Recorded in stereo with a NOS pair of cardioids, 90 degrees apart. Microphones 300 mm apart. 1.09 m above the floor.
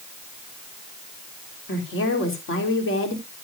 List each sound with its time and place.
1.7 s a woman speaking: 45° left, 3.5 m